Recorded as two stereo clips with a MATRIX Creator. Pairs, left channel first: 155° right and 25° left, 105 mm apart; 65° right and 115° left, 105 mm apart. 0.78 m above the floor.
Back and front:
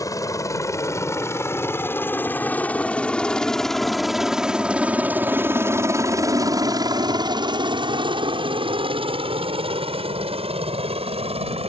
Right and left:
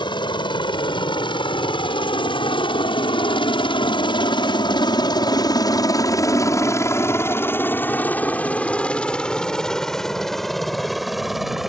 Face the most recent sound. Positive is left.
turn(degrees=25)